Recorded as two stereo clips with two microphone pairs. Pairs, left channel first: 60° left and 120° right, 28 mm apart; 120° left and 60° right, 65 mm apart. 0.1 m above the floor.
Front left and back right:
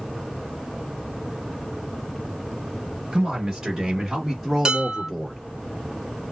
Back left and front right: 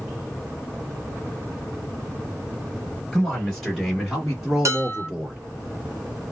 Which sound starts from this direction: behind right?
A man speaking, at 3.1 s.